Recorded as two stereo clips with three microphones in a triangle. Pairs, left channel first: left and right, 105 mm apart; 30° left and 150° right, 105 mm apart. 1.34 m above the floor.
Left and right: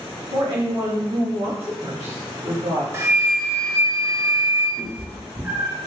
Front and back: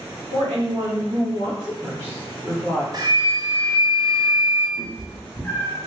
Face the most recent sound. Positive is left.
turn(degrees=-30)